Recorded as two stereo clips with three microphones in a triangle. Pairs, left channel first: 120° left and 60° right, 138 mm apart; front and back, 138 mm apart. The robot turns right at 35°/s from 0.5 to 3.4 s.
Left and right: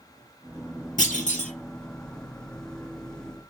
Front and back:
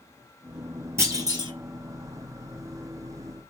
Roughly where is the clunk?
Left.